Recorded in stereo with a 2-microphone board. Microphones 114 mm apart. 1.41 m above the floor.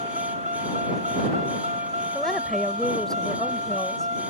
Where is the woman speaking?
5° left (ahead or behind).